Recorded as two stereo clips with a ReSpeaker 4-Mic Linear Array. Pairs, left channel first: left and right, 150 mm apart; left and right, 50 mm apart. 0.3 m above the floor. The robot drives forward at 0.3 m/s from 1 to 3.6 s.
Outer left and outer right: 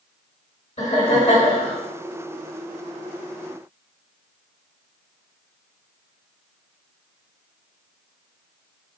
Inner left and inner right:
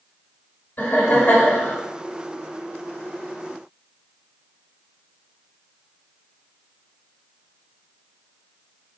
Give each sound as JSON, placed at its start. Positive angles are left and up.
{"t": 0.8, "sound": "laughter", "side_deg": 40, "distance_m": 1.6}